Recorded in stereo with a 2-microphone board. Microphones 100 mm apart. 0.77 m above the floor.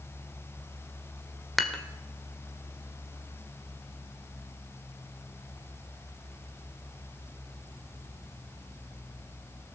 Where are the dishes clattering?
Centre (ahead or behind), 1.5 m.